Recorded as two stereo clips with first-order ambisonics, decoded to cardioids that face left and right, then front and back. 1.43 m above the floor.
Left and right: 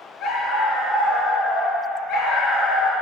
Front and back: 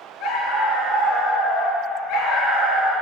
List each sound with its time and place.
0.2 s a dog barking: 45° left, 3.5 m